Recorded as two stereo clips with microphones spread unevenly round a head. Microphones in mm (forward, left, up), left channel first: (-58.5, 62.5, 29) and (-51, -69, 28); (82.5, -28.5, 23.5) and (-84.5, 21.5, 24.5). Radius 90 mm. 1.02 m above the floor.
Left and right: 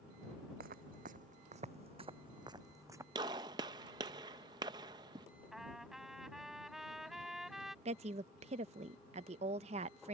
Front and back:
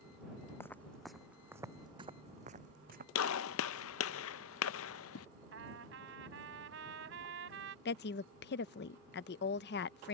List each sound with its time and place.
0.6 s footsteps: 95° right; by 3.0 s 155° right
3.1 s a gunshot: 20° right
5.5 s a trumpet: 175° right
7.8 s a woman speaking: 40° right